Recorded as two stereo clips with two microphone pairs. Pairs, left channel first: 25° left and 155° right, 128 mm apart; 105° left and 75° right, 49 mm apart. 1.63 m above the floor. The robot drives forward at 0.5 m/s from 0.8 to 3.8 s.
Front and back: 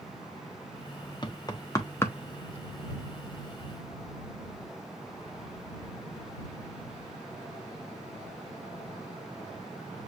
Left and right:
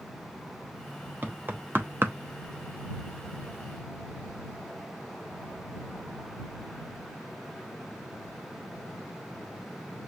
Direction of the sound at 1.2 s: 25° right.